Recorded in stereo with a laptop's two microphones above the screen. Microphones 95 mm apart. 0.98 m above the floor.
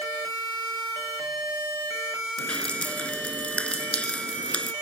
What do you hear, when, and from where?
2.4 s dripping: 10° left (ahead or behind)